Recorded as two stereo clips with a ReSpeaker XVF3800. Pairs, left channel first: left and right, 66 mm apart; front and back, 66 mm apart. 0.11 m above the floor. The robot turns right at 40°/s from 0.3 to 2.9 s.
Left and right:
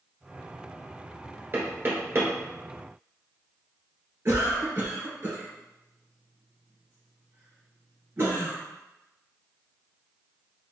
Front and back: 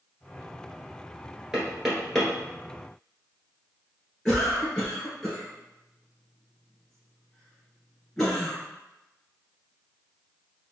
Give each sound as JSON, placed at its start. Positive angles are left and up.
{"t": 1.5, "sound": "knocking", "azimuth_deg": -110, "distance_m": 1.4}
{"t": 4.2, "sound": "a cough", "azimuth_deg": -75, "distance_m": 1.6}